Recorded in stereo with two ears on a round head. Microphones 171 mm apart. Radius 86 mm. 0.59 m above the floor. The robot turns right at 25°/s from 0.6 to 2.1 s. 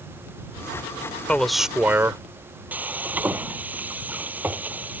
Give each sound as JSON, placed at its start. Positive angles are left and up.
{"t": 1.3, "sound": "a man speaking", "side_deg": 5}
{"t": 2.7, "sound": "frying", "side_deg": -10}